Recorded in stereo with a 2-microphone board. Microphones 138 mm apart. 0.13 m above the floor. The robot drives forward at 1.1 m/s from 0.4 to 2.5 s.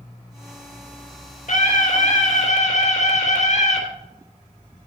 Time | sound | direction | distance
1.5 | a scream | 65° left (ahead or behind) | 4 m